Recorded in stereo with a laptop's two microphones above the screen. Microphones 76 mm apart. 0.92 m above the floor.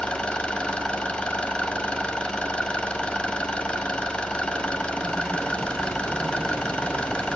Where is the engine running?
15° left (ahead or behind), 2 m.